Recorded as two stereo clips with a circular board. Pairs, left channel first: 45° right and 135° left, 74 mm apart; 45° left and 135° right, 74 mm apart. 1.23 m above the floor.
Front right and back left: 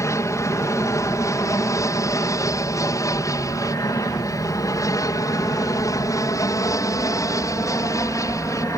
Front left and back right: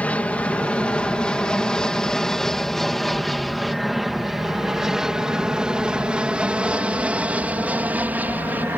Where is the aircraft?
20° right; by 8.8 s 75° right.